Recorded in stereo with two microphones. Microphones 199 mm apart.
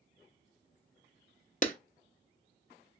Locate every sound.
1.6 s a clap: 40° left (ahead or behind), 0.6 m